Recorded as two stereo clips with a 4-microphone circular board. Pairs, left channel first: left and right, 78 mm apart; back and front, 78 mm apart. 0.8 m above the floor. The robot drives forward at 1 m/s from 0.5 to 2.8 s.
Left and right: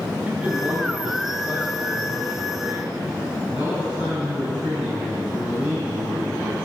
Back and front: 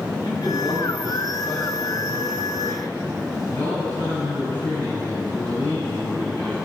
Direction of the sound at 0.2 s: 160° right.